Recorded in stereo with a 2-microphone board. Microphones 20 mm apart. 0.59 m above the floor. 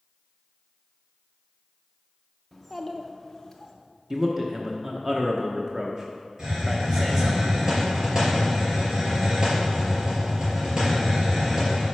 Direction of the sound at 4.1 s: 20° right (ahead or behind).